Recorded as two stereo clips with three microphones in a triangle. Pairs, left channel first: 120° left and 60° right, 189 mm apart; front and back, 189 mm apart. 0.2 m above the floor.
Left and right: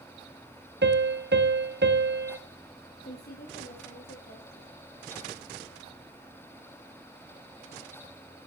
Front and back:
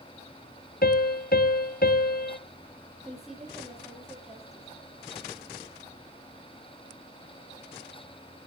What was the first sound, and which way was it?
A piano, 40° right.